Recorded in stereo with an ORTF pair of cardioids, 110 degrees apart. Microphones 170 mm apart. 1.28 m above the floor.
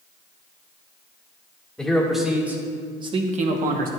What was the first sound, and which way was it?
A man speaking, 5° left.